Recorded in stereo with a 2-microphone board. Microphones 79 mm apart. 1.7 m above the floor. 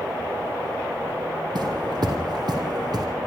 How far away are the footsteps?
About 4.5 m.